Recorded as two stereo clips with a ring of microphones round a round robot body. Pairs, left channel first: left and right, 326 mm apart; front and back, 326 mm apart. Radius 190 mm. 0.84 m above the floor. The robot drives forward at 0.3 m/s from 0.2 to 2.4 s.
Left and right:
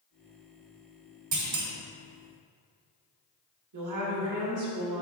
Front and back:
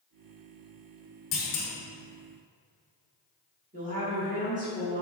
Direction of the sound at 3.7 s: 115° right.